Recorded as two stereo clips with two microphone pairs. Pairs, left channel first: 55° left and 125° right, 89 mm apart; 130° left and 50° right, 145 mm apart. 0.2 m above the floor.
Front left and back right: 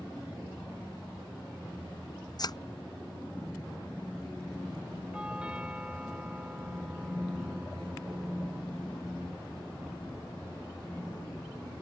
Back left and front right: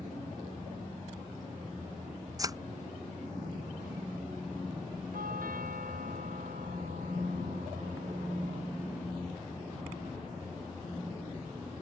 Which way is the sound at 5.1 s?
45° right.